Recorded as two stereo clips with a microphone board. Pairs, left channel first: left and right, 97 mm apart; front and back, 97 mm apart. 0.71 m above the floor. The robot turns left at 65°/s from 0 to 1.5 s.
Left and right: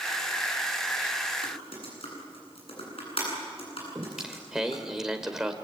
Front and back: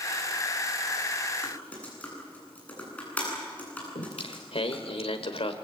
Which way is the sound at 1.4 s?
80° left.